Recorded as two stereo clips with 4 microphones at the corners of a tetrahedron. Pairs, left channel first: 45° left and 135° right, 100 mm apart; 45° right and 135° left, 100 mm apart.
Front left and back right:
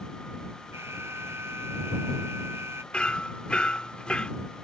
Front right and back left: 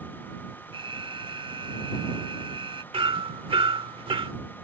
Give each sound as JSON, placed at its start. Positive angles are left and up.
{"t": 0.7, "sound": "an alarm", "azimuth_deg": 160}
{"t": 2.9, "sound": "hammering", "azimuth_deg": 120}